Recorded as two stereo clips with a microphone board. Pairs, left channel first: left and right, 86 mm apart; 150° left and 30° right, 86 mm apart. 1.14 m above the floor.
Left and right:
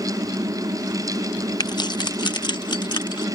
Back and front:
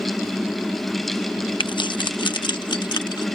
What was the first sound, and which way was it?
Keys jangling, 130° left.